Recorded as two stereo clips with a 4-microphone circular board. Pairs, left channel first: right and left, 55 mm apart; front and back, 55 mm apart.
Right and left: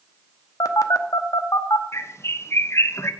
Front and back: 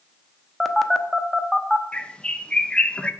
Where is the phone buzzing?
90° right, 0.9 m.